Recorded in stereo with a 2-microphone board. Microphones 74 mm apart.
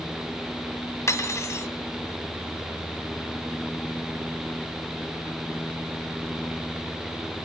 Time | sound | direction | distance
1.1 | cutlery clinking | 40° left (ahead or behind) | 1.2 m